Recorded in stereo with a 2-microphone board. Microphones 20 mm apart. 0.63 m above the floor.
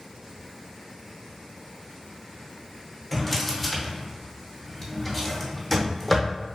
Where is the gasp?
I don't hear a gasp.